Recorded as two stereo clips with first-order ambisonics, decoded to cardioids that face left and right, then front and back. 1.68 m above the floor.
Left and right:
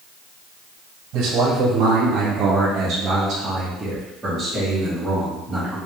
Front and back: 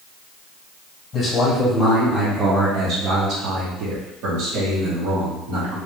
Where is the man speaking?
65° right, 1.0 m; by 5.8 s 175° left, 2 m.